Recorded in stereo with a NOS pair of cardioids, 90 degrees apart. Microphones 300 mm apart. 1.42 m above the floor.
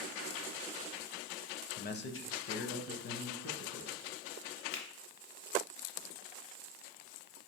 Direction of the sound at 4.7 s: 65° left.